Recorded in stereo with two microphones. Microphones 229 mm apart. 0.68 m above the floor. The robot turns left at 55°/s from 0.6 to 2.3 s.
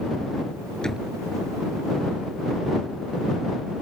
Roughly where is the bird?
No bird in this recording.